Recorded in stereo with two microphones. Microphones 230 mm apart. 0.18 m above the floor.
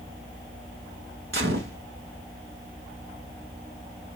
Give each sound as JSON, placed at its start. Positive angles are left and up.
{"t": 1.3, "sound": "a gunshot", "side_deg": -60, "distance_m": 1.0}